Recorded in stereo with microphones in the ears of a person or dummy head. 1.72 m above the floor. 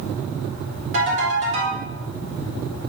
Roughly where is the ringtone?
Right.